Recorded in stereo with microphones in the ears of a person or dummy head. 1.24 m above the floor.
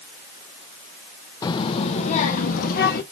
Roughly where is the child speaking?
Left.